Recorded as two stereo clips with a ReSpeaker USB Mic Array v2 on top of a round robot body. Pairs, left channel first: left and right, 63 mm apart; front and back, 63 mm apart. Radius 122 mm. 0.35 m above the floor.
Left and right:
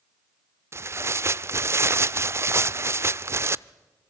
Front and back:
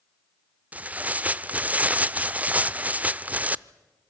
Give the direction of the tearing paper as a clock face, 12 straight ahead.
4 o'clock.